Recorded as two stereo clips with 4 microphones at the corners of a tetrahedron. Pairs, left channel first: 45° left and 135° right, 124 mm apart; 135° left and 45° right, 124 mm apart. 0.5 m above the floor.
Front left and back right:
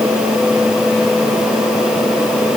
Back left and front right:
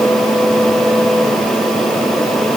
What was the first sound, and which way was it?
Only background noise.